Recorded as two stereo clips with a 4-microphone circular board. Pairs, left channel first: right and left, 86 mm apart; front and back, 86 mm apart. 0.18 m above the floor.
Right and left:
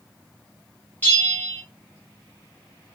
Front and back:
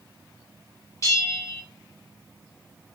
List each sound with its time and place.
1.0 s a bell: 30° right, 1.1 m